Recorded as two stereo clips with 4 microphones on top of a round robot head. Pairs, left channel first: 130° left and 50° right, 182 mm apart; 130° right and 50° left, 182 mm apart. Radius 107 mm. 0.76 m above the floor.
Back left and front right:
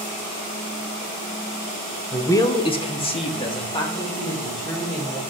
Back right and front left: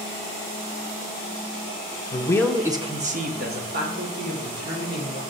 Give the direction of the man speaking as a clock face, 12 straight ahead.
5 o'clock.